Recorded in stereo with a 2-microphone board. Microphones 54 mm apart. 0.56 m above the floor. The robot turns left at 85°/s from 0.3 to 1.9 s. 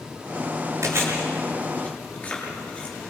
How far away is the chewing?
About 8 m.